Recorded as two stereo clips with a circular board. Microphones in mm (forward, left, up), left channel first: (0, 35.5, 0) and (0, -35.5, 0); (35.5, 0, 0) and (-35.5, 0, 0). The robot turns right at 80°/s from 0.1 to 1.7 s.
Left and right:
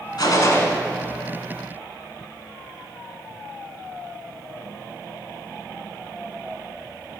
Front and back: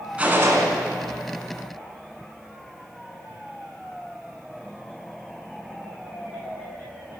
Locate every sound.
0.2 s a gunshot: 110° left, 1.1 m; by 0.7 s 145° left, 1.1 m